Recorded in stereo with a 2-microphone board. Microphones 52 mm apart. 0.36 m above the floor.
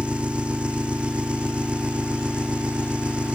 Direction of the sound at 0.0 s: 20° right (ahead or behind).